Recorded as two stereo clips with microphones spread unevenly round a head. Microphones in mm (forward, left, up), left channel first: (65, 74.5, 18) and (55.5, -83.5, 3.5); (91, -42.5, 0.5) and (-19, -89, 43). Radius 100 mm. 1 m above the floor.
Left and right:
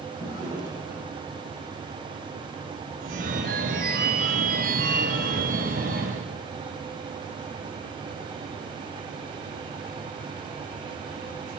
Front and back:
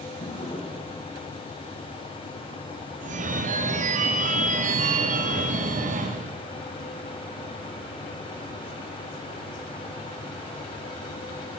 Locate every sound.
0.2 s a drawer: 20° right, 2.5 m
3.0 s a phone ringing: 135° right, 0.6 m